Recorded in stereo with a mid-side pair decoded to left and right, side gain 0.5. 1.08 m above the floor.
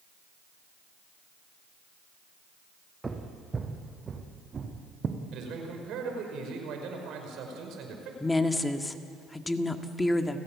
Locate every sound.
3.0 s footsteps: 20° right, 3.5 m; by 5.2 s 40° right, 4 m
5.3 s a man speaking: 70° right, 5.5 m
8.2 s a woman speaking: 15° left, 1.9 m